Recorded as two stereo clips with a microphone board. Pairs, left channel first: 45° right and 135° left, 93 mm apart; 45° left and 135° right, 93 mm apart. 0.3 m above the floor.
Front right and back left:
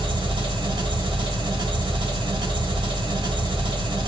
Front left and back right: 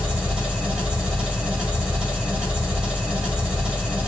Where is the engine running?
145° left, 2 m.